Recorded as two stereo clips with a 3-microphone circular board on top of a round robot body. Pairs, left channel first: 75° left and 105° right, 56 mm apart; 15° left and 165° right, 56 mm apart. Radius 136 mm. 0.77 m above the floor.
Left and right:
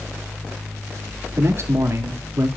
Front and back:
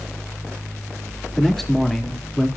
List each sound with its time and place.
1.4 s a man speaking: 70° right, 1.8 m